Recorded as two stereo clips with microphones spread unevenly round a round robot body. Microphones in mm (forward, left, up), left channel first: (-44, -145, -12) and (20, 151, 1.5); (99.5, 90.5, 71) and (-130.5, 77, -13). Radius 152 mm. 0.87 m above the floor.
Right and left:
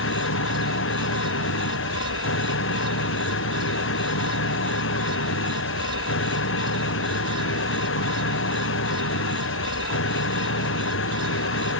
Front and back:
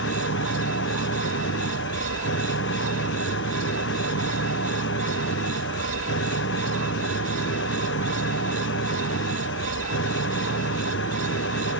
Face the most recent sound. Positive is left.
turn(degrees=-50)